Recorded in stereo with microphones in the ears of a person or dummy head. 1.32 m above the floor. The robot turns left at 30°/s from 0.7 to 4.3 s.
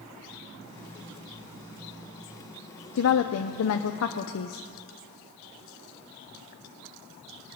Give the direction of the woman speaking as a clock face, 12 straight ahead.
8 o'clock.